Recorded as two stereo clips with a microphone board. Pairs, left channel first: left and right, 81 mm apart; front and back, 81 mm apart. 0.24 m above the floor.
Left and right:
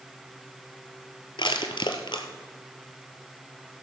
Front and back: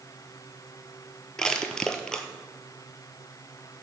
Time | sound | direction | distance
1.4 | crushing | 80° left | 1.0 m